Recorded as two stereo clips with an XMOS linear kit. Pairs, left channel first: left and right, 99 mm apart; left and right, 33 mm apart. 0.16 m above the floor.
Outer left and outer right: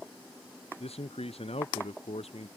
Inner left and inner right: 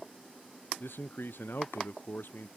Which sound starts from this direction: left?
A man speaking, at 0.8 s.